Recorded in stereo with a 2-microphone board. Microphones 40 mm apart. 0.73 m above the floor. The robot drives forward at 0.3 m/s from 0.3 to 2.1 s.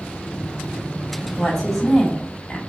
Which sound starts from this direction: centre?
A woman speaking, at 1.4 s.